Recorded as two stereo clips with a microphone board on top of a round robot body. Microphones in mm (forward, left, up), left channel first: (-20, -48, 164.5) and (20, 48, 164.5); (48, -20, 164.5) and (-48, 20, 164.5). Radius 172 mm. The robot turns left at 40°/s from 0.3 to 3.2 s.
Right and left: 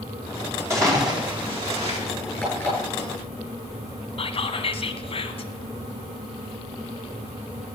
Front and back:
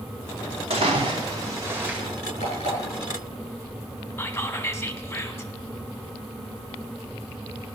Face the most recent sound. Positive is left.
turn(degrees=-85)